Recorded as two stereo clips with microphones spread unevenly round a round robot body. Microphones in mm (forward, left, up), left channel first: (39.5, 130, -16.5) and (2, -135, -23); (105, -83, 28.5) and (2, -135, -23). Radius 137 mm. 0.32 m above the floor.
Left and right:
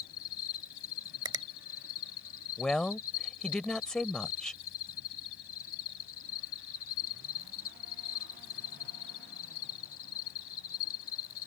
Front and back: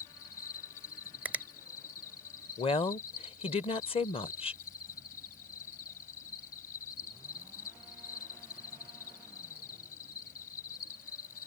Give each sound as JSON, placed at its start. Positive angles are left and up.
{"t": 0.0, "sound": "an insect", "azimuth_deg": 45}
{"t": 1.2, "sound": "a finger snap", "azimuth_deg": -160}
{"t": 2.6, "sound": "a woman speaking", "azimuth_deg": -5}